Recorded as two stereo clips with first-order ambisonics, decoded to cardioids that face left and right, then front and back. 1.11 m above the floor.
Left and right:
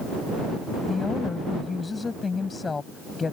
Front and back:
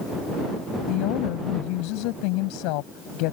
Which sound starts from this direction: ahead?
A woman speaking, at 0.9 s.